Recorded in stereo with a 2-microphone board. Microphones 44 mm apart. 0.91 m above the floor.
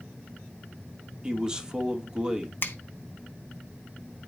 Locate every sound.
1.2 s a man speaking: 20° right (ahead or behind), 1.6 m
2.6 s a finger snap: 50° left (ahead or behind), 0.9 m